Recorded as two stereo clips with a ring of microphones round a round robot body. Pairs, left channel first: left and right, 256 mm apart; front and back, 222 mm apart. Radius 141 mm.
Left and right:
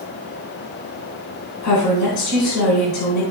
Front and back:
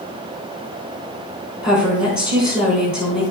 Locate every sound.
1.6 s a woman speaking: 70° left, 3 m